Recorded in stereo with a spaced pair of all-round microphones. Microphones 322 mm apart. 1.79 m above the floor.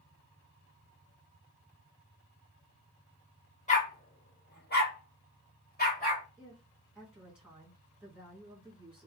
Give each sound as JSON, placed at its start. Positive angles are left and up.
{"t": 3.7, "sound": "a dog barking", "side_deg": 20, "distance_m": 1.2}
{"t": 6.4, "sound": "a woman speaking", "side_deg": -5, "distance_m": 1.9}